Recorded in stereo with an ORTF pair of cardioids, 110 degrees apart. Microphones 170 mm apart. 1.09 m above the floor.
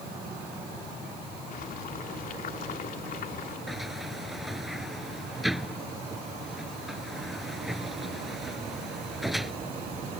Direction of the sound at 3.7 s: Straight ahead.